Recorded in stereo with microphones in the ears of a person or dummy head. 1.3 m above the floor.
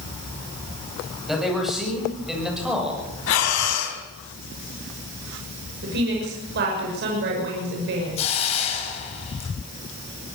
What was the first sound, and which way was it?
A man speaking, 5° left (ahead or behind).